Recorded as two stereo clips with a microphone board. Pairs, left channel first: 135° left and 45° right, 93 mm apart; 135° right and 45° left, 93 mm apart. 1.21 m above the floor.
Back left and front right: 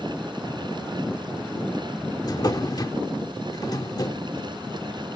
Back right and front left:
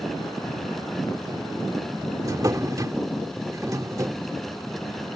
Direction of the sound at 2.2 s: 95° left.